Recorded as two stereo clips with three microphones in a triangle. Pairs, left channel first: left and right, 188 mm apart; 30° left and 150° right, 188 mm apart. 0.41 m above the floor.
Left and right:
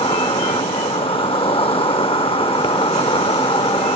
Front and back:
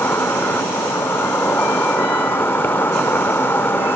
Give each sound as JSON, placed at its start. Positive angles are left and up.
{"t": 0.0, "sound": "an insect", "azimuth_deg": 95}